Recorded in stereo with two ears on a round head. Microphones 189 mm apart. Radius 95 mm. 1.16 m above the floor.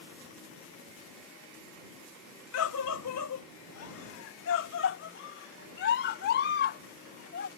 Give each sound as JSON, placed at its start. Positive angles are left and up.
{"t": 2.5, "sound": "a scream", "side_deg": 75}